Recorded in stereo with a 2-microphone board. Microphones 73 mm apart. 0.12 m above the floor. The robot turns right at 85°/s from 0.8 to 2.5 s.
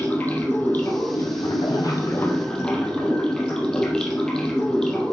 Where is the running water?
25° left, 2.5 m; by 5.1 s 170° left, 2.5 m.